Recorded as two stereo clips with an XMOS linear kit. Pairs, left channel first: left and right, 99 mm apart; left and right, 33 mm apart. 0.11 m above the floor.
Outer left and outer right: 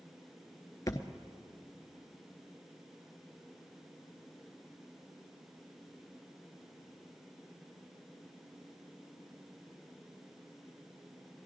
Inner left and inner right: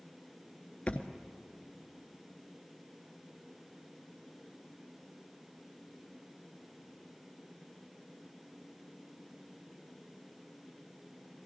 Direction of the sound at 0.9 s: 35° left (ahead or behind).